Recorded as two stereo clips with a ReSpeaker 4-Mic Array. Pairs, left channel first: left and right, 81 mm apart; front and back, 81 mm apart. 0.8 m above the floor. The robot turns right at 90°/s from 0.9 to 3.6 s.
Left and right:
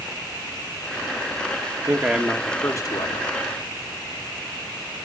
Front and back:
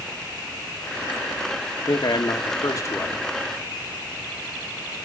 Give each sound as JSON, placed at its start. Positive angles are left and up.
{"t": 1.9, "sound": "a man speaking", "azimuth_deg": -40, "distance_m": 1.6}